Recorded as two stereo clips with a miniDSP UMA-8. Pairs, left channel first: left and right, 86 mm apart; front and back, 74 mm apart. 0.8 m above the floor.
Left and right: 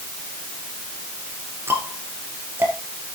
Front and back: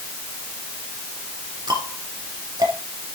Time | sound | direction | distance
1.7 | ticking | 150° right | 3 m